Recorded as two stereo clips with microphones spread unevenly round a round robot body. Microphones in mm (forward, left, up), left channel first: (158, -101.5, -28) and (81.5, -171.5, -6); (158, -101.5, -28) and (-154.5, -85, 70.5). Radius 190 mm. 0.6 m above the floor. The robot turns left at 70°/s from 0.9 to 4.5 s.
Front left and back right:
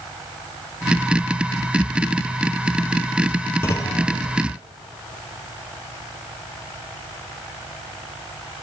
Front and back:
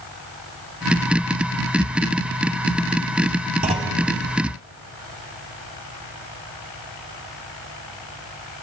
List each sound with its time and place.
3.6 s a clunk: 120° left, 0.7 m; by 4.0 s 95° left, 0.7 m